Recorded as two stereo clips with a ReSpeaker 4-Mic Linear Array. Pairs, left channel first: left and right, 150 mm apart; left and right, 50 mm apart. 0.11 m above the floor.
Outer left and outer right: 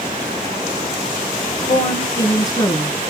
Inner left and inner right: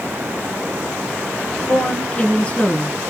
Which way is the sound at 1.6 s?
25° left (ahead or behind).